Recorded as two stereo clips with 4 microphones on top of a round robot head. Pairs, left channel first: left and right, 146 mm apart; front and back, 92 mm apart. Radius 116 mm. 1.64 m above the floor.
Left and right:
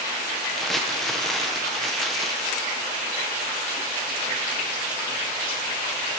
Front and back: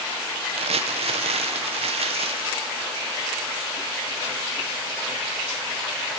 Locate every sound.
0.6 s crumpling: straight behind, 1.5 m